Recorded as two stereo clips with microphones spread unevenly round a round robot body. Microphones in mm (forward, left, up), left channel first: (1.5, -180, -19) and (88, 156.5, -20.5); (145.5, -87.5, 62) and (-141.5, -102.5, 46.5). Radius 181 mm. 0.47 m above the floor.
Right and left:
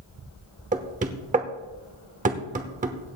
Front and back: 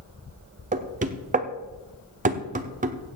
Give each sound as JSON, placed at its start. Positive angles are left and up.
{"t": 0.7, "sound": "knocking", "azimuth_deg": 135, "distance_m": 0.9}